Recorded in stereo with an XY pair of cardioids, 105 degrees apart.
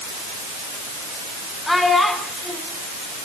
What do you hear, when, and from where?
1.7 s a child speaking: 10° left, 7 m